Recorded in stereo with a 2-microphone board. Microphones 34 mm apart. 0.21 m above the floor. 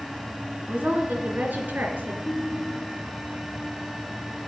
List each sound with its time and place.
0.7 s a woman speaking: 55° right (ahead or behind), 2 m; by 2.1 s 65° right (ahead or behind), 3 m
2.2 s a ringtone: 30° left (ahead or behind), 3 m